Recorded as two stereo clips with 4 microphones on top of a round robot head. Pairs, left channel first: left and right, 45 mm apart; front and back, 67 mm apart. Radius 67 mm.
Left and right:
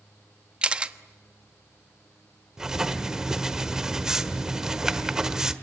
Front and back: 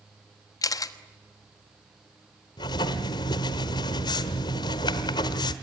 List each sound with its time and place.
0.6 s a camera shutter: 25° right, 1.2 m
2.6 s writing: 10° right, 1.3 m